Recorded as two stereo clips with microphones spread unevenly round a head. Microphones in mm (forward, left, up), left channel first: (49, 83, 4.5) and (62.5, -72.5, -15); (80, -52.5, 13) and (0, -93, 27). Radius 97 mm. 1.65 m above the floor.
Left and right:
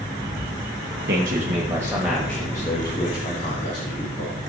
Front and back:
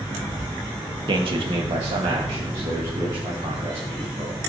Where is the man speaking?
130° right, 1.8 m; by 4.4 s 145° left, 4 m.